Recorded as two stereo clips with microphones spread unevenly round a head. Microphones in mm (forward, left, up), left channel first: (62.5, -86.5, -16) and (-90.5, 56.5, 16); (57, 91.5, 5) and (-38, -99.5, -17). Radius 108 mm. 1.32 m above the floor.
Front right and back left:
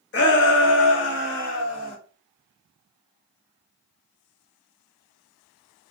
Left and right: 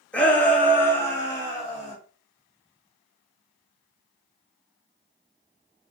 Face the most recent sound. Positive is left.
turn(degrees=-15)